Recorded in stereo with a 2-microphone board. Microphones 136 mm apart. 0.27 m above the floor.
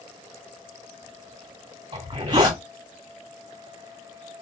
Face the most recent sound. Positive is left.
turn(degrees=-40)  # may be behind; listen again after turning